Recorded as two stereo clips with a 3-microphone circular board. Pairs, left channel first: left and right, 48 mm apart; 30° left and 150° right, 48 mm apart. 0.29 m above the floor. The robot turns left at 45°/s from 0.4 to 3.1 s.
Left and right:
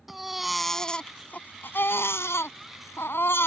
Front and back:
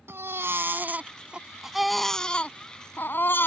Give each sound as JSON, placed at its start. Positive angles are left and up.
{"t": 0.1, "sound": "a baby crying", "azimuth_deg": -175}